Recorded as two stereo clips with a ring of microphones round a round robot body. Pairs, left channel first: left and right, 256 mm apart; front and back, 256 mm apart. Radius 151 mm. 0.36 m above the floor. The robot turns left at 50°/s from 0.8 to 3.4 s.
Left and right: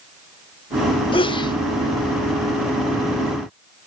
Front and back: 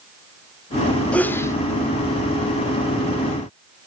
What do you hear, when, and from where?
1.1 s a sneeze: 75° left, 1.0 m; by 1.6 s 55° left, 1.0 m